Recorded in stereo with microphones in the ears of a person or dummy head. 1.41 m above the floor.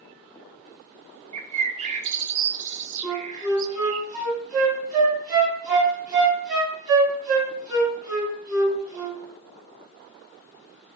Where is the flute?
20° right (ahead or behind), 3.5 m.